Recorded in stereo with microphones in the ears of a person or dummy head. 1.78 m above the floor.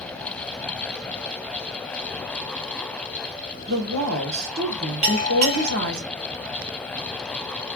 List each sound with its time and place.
3.7 s a woman speaking: 65° right (ahead or behind), 1.7 m
5.0 s a bell: 10° right (ahead or behind), 1.7 m